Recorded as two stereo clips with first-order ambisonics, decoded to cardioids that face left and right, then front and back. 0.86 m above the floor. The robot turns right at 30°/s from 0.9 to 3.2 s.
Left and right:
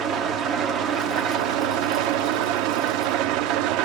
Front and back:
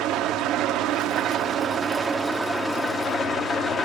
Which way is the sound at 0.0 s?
140° right.